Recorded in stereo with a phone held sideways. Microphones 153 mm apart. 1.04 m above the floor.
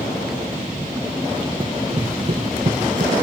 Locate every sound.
1.6 s running footsteps: 35° right (ahead or behind); by 3.1 s 65° right (ahead or behind)